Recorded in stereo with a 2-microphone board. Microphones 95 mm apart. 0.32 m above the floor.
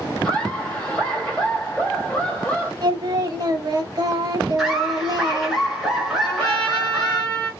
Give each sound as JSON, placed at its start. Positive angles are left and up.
{"t": 0.2, "sound": "laughter", "side_deg": 10, "distance_m": 1.7}
{"t": 2.8, "sound": "singing", "side_deg": -45, "distance_m": 0.6}
{"t": 4.6, "sound": "laughter", "side_deg": 0, "distance_m": 1.4}
{"t": 6.2, "sound": "a trumpet", "side_deg": 10, "distance_m": 1.8}